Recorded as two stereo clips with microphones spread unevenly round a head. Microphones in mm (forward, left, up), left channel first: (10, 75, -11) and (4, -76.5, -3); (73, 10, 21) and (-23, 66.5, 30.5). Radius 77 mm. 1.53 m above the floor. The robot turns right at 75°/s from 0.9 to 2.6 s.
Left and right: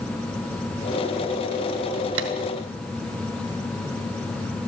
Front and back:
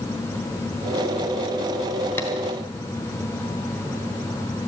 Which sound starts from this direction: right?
Tapping, at 2.2 s.